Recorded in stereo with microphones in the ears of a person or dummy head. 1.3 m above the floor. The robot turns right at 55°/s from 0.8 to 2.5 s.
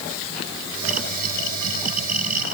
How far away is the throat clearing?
I don't hear throat clearing.